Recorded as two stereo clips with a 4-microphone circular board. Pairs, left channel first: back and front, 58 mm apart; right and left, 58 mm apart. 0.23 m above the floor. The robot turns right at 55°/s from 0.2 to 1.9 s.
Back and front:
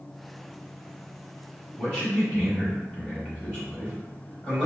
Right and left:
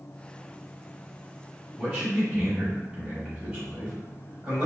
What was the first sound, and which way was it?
A man speaking, 135° left.